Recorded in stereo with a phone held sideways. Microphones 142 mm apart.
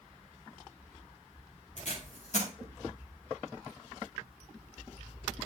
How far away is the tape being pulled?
About 2.5 m.